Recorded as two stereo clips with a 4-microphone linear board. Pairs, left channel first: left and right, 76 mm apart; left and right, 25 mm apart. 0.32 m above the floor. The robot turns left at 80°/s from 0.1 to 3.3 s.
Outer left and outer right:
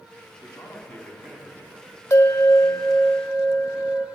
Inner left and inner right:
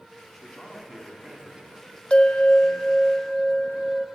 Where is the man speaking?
60° left, 2.5 m; by 3.1 s 155° right, 2.5 m.